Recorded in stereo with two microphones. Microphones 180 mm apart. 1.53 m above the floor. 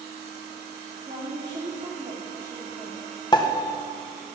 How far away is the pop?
About 1.3 m.